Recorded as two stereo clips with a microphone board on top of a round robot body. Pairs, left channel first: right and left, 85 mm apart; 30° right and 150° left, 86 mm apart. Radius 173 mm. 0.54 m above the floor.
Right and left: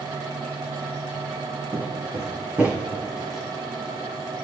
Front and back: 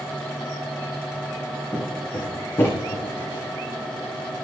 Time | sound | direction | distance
1.7 | footsteps | 40° left | 4 m